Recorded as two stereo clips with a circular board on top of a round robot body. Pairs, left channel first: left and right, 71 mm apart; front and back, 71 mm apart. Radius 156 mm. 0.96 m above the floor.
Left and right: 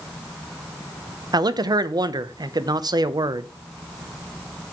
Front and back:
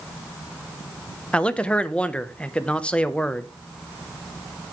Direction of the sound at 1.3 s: 75° right.